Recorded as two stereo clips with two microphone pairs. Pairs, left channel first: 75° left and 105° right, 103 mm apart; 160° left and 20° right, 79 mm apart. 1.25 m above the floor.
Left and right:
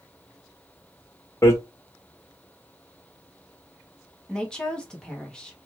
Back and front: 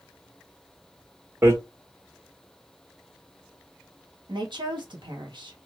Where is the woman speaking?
5° right, 1.0 m.